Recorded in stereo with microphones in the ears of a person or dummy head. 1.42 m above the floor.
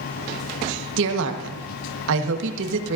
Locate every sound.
1.0 s a woman speaking: 70° right (ahead or behind), 1.3 m